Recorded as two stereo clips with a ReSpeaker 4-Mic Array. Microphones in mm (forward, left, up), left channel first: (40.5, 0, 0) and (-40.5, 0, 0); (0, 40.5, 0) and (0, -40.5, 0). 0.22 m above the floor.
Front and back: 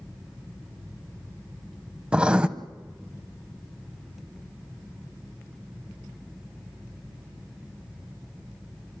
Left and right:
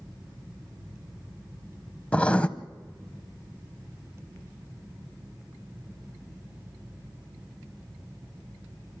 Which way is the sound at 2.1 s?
130° left.